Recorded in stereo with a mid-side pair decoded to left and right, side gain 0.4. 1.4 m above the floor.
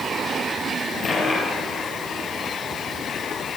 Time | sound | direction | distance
1.0 | a dropped coin | 40° left | 8.5 m